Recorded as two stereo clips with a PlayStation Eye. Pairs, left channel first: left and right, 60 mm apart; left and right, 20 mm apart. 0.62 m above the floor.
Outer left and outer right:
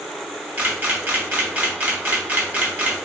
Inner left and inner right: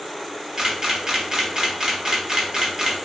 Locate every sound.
0.6 s a camera shutter: 30° right (ahead or behind), 0.8 m